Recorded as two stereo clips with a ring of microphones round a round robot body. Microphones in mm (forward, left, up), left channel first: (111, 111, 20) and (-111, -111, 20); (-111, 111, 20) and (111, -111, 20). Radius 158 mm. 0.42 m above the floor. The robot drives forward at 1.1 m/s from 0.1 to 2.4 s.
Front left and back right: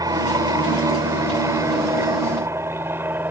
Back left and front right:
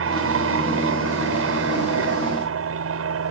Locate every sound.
0.0 s an aircraft: 60° right; by 3.3 s 55° right